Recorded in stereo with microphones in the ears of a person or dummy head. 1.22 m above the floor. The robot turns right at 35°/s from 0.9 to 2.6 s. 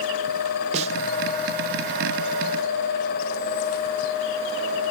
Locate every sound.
0.7 s a snare drum: 30° right (ahead or behind)